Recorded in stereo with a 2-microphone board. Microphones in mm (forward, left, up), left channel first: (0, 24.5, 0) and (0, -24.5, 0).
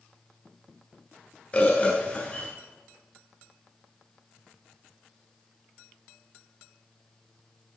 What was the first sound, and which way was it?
A bird, 25° left (ahead or behind).